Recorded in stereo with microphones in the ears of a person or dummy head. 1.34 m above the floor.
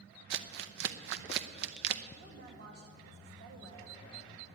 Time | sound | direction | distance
0.3 | crumpling | 60° right (ahead or behind) | 0.7 m
2.2 | a woman speaking | 60° right (ahead or behind) | 2.5 m